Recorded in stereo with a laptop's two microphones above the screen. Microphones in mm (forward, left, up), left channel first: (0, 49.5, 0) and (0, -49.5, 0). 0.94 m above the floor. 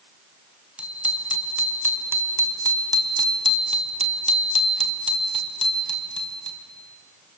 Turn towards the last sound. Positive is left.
turn(degrees=-45)  # may be behind; listen again after turning